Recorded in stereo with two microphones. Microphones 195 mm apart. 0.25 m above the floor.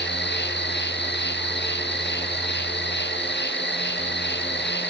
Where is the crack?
No crack in this recording.